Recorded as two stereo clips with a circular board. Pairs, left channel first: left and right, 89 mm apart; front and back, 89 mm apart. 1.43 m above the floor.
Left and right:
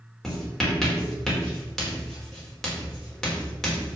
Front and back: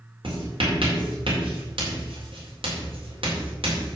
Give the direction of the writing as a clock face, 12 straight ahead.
6 o'clock.